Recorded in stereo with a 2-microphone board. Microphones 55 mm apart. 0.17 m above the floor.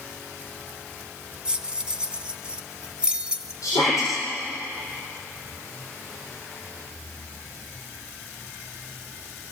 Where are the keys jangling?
15° right (ahead or behind), 1.0 m.